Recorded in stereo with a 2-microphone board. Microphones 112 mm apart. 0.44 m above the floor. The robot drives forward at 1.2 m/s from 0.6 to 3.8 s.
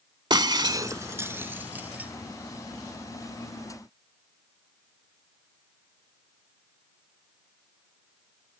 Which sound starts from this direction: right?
Breaking glass, at 0.3 s.